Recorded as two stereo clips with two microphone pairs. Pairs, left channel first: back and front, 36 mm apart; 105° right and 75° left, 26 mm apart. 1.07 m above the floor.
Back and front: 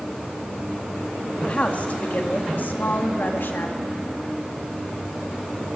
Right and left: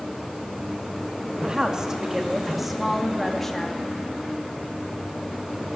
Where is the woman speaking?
130° left, 2.5 m; by 3.8 s straight behind, 2.5 m.